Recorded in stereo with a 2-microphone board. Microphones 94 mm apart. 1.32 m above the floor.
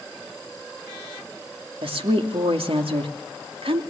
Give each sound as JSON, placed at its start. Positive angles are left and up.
{"t": 1.8, "sound": "a woman speaking", "side_deg": -85, "distance_m": 2.5}